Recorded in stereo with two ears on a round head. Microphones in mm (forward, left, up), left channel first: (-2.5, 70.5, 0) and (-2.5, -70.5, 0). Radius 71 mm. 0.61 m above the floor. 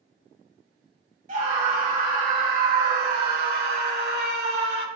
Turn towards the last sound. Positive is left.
turn(degrees=-70)  # may be behind; listen again after turning